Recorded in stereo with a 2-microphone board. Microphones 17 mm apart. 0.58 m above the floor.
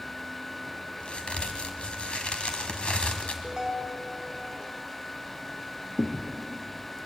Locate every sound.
1.0 s a crack: 80° left, 2 m
3.4 s a ringtone: 20° right (ahead or behind), 3 m
6.0 s a thud: 85° left, 2.5 m